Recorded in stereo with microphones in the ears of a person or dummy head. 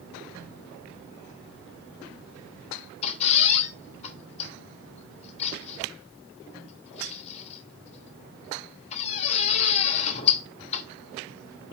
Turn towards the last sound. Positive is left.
turn(degrees=35)  # may be behind; listen again after turning